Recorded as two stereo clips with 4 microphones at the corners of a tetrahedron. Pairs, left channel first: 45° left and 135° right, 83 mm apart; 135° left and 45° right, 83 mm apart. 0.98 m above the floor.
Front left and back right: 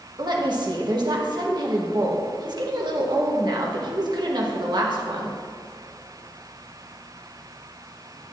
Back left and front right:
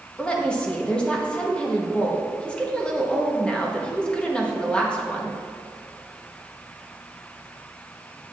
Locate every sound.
0.2 s a woman speaking: 150° right, 1.4 m